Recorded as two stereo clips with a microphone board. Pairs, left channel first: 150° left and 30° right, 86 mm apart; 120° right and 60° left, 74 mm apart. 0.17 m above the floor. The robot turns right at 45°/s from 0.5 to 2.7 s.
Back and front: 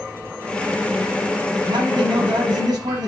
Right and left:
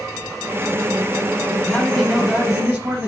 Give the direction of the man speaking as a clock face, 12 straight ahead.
1 o'clock.